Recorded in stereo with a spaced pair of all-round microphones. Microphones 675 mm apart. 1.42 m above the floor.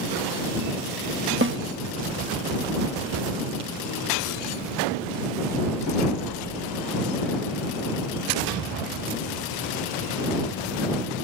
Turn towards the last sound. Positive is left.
turn(degrees=-15)  # may be behind; listen again after turning